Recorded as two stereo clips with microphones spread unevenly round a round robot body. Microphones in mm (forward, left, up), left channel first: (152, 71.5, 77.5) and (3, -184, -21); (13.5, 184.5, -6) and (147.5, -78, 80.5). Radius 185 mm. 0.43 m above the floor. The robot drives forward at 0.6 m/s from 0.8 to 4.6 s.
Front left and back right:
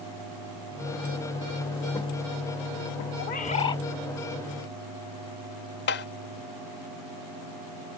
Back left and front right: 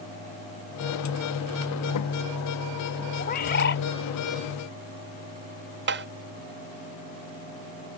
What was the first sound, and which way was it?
A bird, 125° left.